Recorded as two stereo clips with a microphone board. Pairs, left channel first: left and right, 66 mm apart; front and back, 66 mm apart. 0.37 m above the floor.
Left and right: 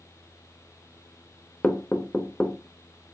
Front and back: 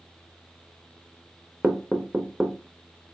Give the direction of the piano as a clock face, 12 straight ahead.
I don't hear a piano.